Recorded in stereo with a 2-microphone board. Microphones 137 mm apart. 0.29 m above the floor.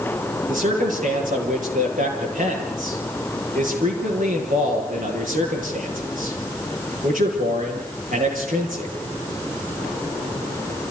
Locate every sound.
0.5 s a man speaking: 75° right (ahead or behind), 8 m